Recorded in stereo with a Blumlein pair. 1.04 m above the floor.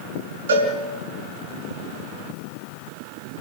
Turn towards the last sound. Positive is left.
turn(degrees=-60)